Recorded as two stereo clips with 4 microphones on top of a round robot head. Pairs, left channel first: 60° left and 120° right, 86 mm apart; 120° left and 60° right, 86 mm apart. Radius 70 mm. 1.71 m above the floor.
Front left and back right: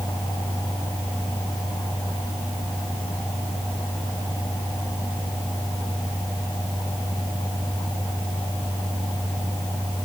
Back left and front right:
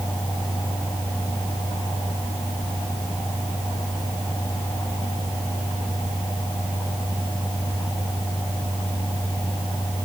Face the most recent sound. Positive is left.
No sound to turn to.